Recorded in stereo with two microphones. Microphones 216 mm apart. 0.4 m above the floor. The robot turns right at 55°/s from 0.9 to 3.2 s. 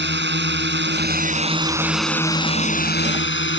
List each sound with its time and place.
0.0 s a drone: 60° right; by 3.6 s 65° left